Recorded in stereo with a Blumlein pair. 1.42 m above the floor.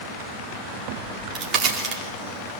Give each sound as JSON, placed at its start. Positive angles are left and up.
{"t": 1.0, "sound": "a crack", "azimuth_deg": -25, "distance_m": 4.5}